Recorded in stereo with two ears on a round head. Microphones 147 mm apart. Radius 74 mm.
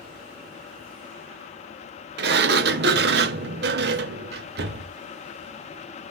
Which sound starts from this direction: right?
A sliding door, at 2.2 s.